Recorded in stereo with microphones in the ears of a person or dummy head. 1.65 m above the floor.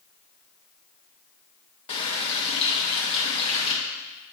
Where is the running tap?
40° left (ahead or behind), 1.2 m.